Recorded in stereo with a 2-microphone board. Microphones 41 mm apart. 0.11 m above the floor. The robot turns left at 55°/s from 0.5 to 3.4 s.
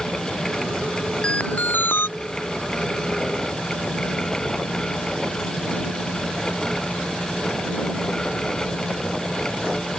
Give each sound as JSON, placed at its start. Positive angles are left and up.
{"t": 1.2, "sound": "an alarm", "azimuth_deg": 155}